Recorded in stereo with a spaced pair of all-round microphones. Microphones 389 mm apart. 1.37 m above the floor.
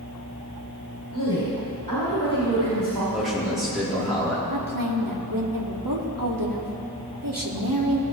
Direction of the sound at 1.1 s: 65° right (ahead or behind).